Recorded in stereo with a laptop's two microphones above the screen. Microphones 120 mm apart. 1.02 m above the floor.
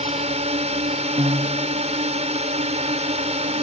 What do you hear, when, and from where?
0.0 s a drone: 65° right (ahead or behind)
1.2 s a piano: 50° right (ahead or behind)